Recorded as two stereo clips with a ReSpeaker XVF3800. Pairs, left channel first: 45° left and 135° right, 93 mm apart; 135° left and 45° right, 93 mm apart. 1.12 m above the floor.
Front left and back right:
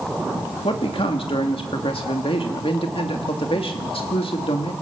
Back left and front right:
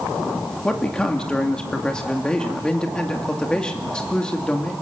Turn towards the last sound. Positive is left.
turn(degrees=55)